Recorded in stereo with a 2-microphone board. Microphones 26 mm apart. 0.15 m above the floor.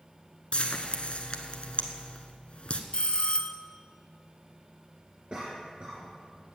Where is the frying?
50° left (ahead or behind), 1.1 m.